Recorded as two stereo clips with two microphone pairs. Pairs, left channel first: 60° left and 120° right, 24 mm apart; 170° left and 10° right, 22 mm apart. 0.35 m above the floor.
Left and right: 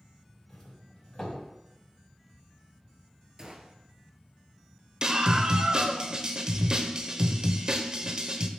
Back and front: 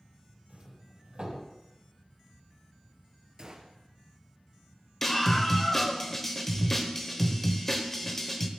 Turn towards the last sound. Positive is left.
turn(degrees=-125)